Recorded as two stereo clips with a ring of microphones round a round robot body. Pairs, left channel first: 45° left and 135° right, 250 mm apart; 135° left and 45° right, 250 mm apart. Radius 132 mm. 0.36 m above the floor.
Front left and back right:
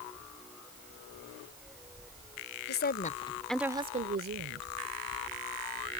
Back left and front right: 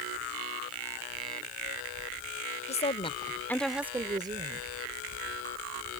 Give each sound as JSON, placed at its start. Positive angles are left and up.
{"t": 2.7, "sound": "a woman speaking", "azimuth_deg": 80}